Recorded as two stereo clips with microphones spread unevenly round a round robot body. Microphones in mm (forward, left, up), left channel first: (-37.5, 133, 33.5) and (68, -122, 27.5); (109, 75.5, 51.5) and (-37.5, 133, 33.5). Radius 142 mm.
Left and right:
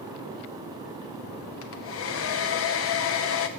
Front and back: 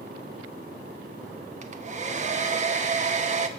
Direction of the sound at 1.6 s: 140° left.